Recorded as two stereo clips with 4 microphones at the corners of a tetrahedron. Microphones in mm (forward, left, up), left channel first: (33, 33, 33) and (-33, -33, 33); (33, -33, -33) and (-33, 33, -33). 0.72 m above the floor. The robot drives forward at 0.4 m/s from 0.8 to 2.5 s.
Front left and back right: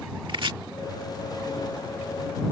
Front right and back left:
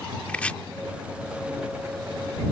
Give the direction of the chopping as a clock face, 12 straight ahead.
4 o'clock.